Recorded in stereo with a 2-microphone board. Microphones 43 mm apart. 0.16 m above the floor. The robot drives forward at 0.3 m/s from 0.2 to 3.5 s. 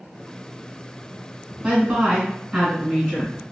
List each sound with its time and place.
1.6 s a woman speaking: 15° right (ahead or behind), 1.8 m; by 3.4 s 10° right (ahead or behind), 2 m